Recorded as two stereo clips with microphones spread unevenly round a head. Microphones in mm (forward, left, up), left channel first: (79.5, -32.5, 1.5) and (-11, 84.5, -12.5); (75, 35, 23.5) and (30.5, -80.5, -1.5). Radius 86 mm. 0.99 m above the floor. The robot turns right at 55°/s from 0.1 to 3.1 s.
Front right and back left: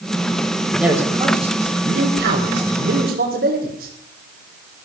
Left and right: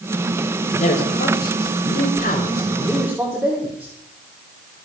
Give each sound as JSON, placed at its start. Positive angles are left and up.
{"t": 0.8, "sound": "a man speaking", "azimuth_deg": 40, "distance_m": 3.5}